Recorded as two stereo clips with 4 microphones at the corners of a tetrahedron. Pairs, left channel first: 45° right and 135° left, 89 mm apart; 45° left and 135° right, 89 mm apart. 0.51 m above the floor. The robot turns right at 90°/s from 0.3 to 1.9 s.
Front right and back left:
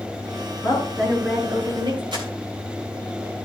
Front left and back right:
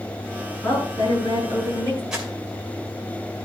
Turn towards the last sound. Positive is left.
turn(degrees=145)